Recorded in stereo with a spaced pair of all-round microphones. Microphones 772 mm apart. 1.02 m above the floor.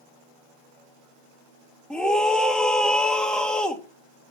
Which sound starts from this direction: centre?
A scream, at 1.9 s.